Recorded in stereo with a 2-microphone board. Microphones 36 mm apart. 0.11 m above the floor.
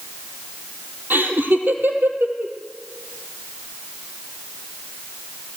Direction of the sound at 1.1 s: 65° right (ahead or behind).